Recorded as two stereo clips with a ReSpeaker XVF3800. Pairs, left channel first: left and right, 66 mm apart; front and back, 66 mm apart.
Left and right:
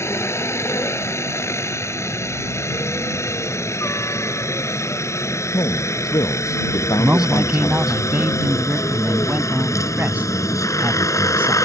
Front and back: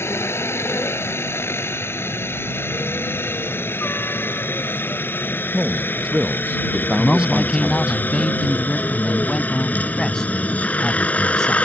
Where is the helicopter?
45° left; by 11.7 s 65° left.